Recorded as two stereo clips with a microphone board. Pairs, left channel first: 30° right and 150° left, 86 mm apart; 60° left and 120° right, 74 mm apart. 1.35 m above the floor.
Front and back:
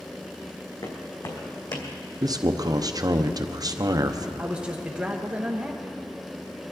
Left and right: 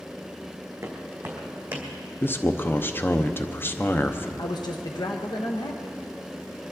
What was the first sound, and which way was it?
Footsteps, 65° right.